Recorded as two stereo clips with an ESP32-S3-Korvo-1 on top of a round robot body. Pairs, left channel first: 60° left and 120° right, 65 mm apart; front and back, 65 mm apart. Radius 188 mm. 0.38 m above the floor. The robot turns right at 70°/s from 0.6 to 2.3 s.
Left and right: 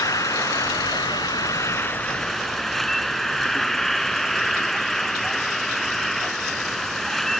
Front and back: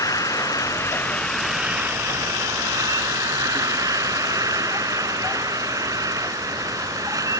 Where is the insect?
30° left; by 7.4 s 145° left.